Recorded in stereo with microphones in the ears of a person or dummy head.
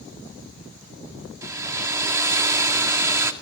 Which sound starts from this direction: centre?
A hair dryer, at 1.4 s.